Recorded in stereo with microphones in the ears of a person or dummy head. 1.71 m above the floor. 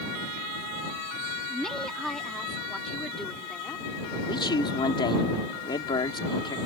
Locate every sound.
1.5 s a woman speaking: 5° left (ahead or behind); by 3.9 s centre (ahead or behind)
4.3 s a man speaking: 25° left (ahead or behind)